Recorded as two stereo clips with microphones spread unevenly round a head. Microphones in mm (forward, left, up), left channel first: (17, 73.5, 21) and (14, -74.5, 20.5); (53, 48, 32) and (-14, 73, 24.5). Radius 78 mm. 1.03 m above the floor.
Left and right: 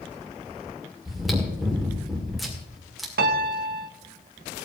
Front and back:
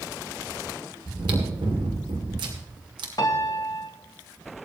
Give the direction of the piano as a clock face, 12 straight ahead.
3 o'clock.